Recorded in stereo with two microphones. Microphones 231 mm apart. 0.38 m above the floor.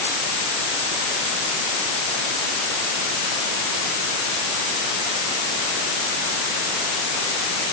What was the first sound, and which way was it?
Only background noise.